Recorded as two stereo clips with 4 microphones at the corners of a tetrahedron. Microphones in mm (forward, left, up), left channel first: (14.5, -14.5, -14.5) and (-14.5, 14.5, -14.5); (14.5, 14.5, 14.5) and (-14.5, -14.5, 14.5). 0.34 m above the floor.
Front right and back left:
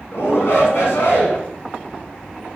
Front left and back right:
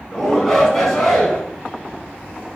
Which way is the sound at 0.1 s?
35° right.